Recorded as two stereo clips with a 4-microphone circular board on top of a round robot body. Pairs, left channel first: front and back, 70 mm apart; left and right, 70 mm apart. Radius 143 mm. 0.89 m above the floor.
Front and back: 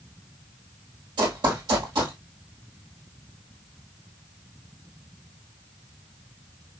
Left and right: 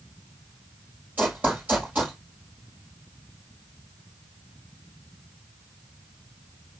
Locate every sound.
1.2 s running footsteps: 160° right, 1.7 m